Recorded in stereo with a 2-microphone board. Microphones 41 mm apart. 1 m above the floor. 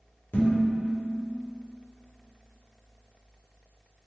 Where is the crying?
I don't hear crying.